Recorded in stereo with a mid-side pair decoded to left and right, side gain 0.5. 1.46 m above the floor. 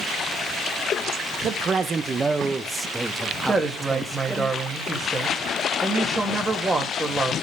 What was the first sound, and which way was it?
A man speaking, 50° right.